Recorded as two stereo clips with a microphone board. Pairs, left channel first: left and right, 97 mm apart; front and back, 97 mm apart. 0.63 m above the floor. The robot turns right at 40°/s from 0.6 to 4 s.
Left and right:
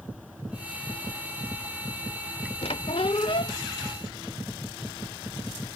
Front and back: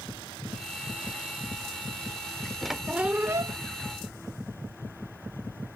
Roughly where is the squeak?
Left.